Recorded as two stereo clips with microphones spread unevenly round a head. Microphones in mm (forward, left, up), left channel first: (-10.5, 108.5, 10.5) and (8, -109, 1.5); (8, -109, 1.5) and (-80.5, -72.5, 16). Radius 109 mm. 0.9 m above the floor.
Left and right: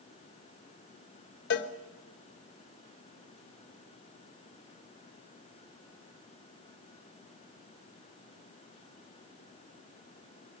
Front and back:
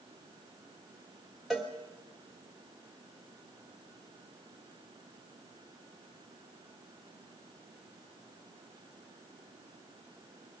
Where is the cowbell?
60° left, 1.1 m.